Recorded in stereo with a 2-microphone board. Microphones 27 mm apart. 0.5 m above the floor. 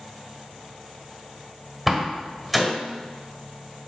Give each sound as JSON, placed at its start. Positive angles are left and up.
{"t": 1.9, "sound": "a door slam", "side_deg": -10, "distance_m": 1.6}